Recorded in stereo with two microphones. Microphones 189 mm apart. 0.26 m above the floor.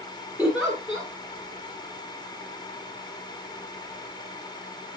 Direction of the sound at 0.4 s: 5° right (ahead or behind).